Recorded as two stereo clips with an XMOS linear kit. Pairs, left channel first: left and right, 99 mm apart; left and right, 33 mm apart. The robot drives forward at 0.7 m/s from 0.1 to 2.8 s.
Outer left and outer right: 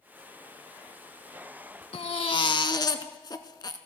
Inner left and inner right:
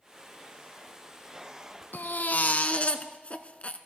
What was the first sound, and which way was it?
A baby crying, 70° left (ahead or behind).